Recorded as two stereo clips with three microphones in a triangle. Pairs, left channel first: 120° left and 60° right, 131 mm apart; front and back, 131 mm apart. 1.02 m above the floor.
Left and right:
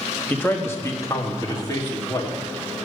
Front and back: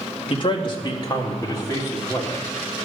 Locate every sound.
0.3 s a man speaking: 45° left, 1.2 m; by 2.4 s 60° left, 2 m